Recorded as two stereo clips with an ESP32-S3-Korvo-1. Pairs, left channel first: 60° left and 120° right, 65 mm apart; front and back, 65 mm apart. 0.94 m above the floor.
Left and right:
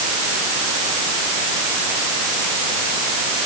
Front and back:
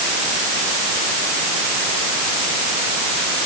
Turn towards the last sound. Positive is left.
No sound to turn to.